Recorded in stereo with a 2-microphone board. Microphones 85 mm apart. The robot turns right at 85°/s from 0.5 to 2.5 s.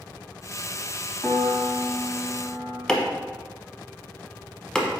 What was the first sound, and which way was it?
A piano, 15° left.